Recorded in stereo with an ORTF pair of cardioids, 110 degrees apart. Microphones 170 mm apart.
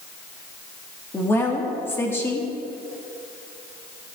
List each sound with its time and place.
1.1 s a woman speaking: 15° left, 2.5 m